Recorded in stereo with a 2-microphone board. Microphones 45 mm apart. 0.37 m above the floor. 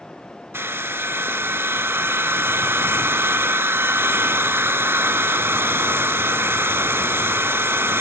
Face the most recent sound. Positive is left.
turn(degrees=-65)  # may be behind; listen again after turning